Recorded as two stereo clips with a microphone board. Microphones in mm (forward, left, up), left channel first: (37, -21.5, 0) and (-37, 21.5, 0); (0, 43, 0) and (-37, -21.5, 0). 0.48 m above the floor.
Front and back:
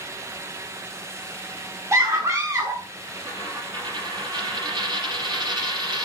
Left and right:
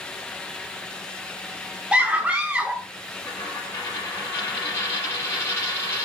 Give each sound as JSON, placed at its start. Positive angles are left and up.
{"t": 1.9, "sound": "a scream", "azimuth_deg": 175, "distance_m": 0.8}
{"t": 3.2, "sound": "a dropped coin", "azimuth_deg": 120, "distance_m": 3.5}